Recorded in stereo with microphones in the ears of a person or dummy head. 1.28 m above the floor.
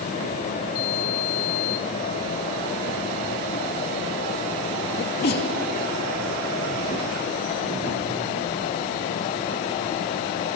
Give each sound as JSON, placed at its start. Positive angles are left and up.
{"t": 5.0, "sound": "a sneeze", "side_deg": 45, "distance_m": 2.5}